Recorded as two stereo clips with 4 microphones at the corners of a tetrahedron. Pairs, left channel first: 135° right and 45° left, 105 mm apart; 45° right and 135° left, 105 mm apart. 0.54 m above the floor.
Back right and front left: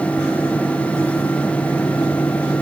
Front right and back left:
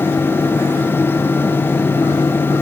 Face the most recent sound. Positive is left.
No sound to turn to.